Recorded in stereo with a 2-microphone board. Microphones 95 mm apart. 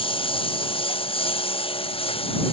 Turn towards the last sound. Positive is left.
turn(degrees=65)  # may be behind; listen again after turning